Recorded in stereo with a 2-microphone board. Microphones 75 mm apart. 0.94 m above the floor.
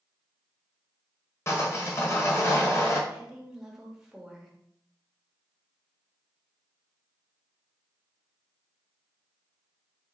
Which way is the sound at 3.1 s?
5° right (ahead or behind).